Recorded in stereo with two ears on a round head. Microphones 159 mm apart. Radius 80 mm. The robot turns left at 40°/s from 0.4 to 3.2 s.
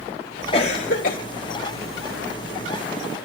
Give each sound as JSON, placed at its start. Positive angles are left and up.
{"t": 0.5, "sound": "a cough", "side_deg": 35, "distance_m": 0.6}